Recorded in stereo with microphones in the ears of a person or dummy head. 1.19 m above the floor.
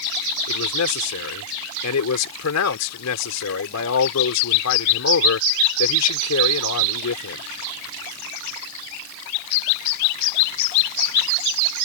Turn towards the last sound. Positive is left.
turn(degrees=85)